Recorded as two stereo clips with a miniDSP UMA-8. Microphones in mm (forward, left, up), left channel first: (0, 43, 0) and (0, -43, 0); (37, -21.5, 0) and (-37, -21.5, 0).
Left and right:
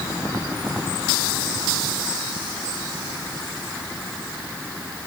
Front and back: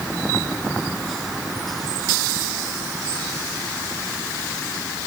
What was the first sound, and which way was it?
Only background noise.